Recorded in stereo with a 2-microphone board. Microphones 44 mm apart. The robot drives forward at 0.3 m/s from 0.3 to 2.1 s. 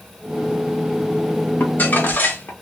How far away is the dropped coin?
No dropped coin in this recording.